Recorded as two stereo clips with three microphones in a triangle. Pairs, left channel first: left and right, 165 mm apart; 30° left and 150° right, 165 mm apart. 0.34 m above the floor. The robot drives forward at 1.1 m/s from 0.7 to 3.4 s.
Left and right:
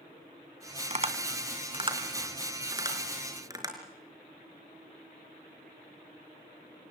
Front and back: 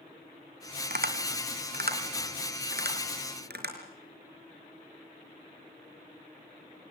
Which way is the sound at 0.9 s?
135° right.